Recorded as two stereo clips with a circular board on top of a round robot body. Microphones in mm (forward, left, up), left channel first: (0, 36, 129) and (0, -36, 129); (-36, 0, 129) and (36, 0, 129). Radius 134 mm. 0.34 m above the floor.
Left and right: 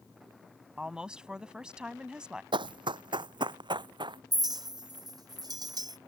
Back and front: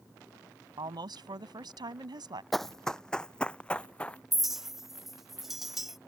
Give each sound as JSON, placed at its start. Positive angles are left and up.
{"t": 0.8, "sound": "a woman speaking", "azimuth_deg": -10}
{"t": 2.5, "sound": "running footsteps", "azimuth_deg": -90}
{"t": 4.3, "sound": "a clink", "azimuth_deg": -85}